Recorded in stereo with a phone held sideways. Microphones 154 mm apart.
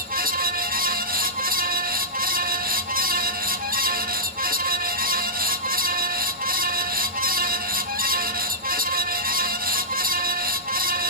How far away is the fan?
About 1.7 m.